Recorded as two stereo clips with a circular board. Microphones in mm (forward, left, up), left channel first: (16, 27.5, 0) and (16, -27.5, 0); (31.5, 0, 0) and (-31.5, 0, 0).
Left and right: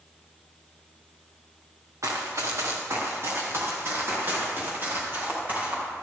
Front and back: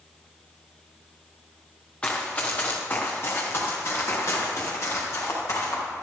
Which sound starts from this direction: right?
Running footsteps, at 2.0 s.